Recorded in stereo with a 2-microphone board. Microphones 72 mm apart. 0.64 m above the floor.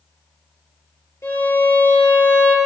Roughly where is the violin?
Left.